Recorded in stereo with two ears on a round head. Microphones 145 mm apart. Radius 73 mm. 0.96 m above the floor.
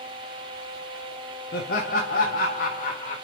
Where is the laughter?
65° left (ahead or behind), 1.6 m; by 3.1 s 50° left (ahead or behind), 2 m.